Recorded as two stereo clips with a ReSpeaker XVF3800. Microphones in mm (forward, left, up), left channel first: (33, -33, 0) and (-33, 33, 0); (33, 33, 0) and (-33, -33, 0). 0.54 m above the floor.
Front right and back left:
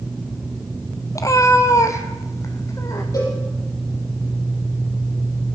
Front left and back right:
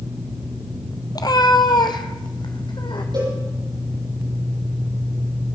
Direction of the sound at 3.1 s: 100° right.